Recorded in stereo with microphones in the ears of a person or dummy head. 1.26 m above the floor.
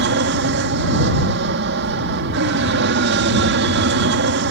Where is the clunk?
I don't hear a clunk.